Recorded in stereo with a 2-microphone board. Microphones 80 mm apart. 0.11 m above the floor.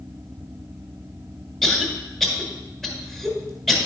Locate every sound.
1.6 s a cough: 5° left (ahead or behind), 1.7 m